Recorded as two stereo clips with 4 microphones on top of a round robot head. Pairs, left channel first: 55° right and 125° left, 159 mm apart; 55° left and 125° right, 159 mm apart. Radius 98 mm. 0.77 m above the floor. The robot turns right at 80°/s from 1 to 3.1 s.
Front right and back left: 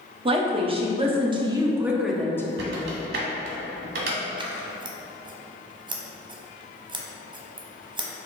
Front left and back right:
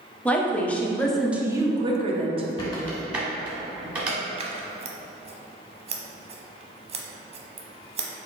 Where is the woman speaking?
130° left, 0.7 m; by 2.5 s 115° right, 0.7 m.